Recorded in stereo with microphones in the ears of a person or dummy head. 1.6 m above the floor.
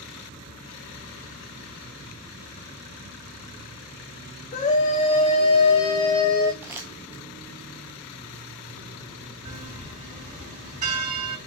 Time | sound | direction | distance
4.5 | a scream | 35° left (ahead or behind) | 1.3 m
6.6 | crumpling | 10° right (ahead or behind) | 0.8 m
9.4 | a bell | 40° right (ahead or behind) | 3 m